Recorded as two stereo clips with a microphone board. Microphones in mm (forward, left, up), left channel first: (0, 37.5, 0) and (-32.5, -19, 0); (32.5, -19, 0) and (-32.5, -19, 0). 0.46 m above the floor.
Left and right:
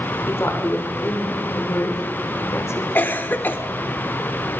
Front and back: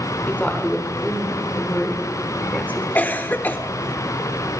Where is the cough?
35° left, 0.9 m.